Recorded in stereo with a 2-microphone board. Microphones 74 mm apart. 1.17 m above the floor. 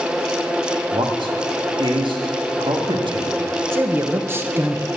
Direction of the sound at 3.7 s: 30° right (ahead or behind).